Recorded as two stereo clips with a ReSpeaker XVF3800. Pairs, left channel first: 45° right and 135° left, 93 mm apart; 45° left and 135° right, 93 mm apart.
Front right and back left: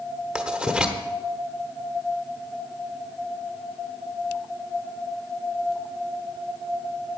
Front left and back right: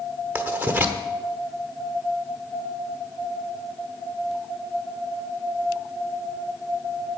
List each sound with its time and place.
0.3 s writing: 160° right, 1.2 m